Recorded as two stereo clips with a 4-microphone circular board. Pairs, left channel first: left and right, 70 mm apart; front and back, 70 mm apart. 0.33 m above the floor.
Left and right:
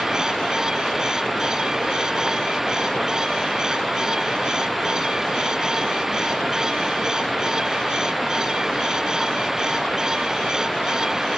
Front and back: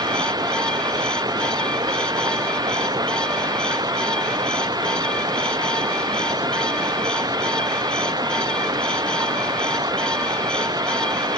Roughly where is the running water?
Behind.